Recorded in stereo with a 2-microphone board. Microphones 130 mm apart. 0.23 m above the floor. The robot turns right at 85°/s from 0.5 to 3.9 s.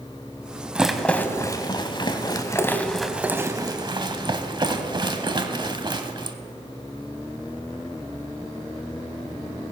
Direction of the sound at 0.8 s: 10° right (ahead or behind).